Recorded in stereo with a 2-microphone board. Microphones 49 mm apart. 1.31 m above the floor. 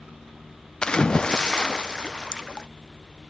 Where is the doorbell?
No doorbell in this recording.